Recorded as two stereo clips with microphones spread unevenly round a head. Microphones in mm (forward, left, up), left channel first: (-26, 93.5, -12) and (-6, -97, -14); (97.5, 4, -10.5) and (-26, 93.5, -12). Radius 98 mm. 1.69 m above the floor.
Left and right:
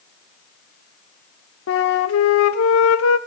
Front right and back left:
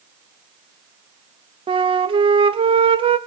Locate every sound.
1.7 s a flute: 90° left, 0.8 m